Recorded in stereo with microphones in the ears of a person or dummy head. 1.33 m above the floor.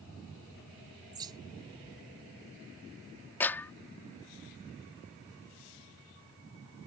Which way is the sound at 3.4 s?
10° left (ahead or behind).